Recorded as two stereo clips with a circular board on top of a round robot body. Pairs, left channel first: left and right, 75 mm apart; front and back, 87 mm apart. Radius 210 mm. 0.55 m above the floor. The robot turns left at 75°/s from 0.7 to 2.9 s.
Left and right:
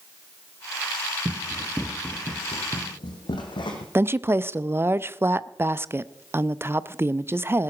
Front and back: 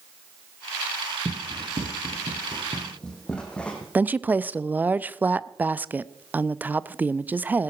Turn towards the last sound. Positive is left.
turn(degrees=-120)